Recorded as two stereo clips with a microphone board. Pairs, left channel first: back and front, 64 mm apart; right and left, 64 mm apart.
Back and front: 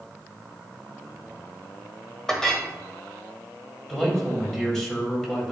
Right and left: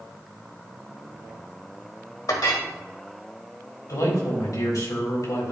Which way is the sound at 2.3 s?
100° right.